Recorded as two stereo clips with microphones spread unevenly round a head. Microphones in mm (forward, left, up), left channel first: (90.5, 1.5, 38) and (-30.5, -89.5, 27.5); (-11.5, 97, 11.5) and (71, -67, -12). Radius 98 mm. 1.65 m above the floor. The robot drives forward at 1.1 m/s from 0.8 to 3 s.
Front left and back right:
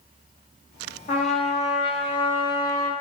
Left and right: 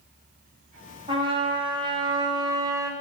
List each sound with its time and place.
1.1 s a trumpet: straight ahead, 3 m; by 2.9 s 5° left, 1.4 m